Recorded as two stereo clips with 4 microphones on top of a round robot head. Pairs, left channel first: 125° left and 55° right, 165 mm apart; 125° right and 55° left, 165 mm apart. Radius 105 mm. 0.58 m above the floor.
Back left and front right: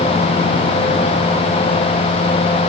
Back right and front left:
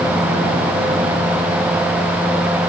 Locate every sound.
Only background noise.